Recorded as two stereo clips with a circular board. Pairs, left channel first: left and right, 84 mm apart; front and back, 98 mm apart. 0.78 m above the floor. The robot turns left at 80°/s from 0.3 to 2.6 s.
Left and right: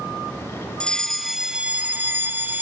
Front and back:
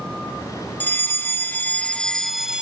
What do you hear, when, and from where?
0.8 s a fire alarm: 30° left, 1.7 m; by 2.6 s 115° right, 1.7 m